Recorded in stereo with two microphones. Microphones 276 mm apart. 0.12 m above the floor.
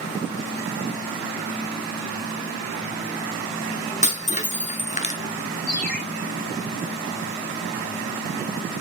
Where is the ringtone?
60° right (ahead or behind), 2.5 m.